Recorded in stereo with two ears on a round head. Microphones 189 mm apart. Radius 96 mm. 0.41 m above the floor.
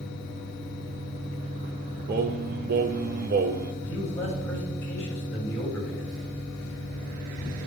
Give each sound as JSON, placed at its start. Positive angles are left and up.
{"t": 2.1, "sound": "singing", "side_deg": -45, "distance_m": 0.5}
{"t": 3.8, "sound": "a man speaking", "side_deg": 10, "distance_m": 2.5}